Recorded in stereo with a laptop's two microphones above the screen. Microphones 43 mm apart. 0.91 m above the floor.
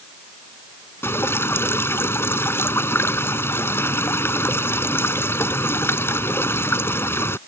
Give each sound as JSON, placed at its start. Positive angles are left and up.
{"t": 1.0, "sound": "dripping", "side_deg": 75}